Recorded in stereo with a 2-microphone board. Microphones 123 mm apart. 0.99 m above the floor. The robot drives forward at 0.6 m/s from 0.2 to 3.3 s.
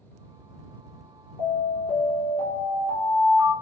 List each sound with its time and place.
1.4 s an alarm: 50° left (ahead or behind), 3.5 m; by 3.5 s 70° left (ahead or behind), 3 m